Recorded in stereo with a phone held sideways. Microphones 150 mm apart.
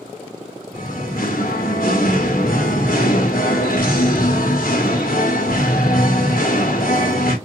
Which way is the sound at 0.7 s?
75° left (ahead or behind).